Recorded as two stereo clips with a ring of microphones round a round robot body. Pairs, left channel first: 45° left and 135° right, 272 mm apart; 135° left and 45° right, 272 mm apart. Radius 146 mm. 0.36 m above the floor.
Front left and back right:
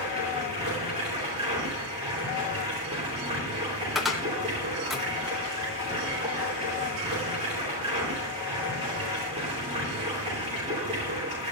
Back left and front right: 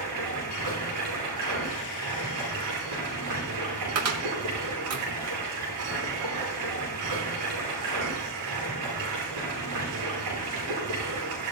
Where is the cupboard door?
45° right, 2.0 m.